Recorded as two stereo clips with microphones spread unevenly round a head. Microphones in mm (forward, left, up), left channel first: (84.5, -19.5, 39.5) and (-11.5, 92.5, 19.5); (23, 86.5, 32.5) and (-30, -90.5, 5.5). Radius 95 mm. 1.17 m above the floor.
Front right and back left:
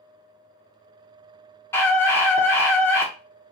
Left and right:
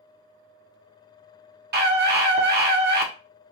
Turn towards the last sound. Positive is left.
turn(degrees=-130)